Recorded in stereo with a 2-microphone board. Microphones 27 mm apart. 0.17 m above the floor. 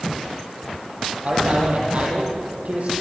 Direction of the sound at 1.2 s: 50° right (ahead or behind).